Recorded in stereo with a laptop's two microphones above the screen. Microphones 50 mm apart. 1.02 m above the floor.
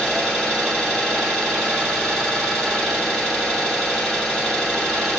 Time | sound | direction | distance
0.0 | an engine running | centre (ahead or behind) | 1.8 m